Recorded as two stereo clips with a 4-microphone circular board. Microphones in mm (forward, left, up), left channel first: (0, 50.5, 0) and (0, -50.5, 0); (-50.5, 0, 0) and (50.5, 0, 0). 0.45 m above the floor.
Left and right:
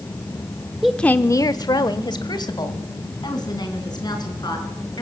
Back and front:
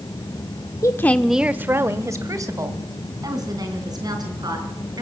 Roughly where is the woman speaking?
Behind.